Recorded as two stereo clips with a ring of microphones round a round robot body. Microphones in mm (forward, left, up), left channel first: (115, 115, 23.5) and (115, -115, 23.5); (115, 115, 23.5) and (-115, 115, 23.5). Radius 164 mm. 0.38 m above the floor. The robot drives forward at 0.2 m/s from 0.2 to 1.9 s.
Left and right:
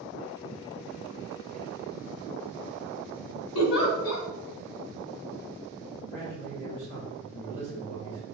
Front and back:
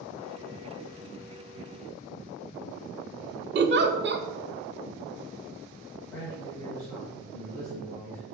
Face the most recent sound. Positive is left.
turn(degrees=-75)